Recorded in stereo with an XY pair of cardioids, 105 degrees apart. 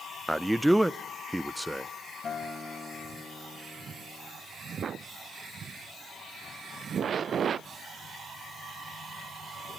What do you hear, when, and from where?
0.3 s a man speaking: 10° right, 0.5 m
2.2 s a guitar: 40° left, 5 m